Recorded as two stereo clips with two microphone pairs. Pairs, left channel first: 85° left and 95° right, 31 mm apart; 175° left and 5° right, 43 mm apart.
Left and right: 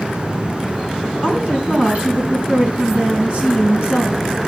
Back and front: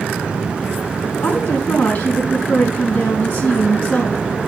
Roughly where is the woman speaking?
Behind right.